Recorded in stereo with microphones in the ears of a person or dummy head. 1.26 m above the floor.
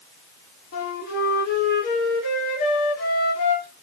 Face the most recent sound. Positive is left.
turn(degrees=50)  # may be behind; listen again after turning